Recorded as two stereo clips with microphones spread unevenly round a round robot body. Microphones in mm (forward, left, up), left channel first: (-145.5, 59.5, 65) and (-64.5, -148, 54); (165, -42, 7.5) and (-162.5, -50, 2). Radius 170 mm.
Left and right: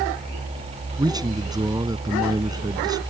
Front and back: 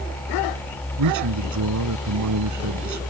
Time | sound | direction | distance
1.0 | a man speaking | 140° right | ?